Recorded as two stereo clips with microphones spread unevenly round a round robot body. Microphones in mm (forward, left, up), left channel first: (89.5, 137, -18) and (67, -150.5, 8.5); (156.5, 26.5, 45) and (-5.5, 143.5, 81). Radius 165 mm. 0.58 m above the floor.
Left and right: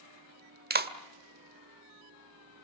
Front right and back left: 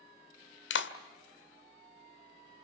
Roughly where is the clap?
Ahead right.